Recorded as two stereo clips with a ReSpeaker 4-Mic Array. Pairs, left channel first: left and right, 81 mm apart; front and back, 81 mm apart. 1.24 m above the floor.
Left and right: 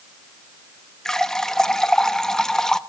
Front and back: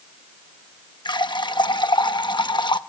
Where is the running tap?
10° left, 0.9 m.